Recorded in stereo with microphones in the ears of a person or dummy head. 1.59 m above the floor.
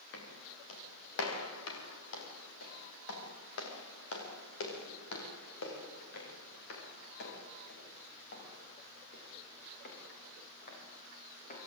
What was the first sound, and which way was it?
Footsteps, 75° left (ahead or behind).